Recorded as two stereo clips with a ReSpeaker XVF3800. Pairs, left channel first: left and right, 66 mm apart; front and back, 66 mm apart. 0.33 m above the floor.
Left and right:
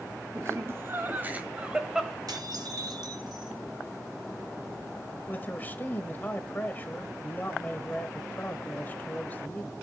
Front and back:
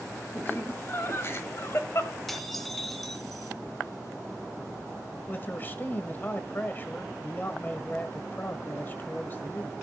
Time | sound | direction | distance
0.3 | laughter | 50° right | 2.5 m
2.3 | dishes clattering | 90° right | 2 m
5.3 | a man speaking | 40° left | 1.2 m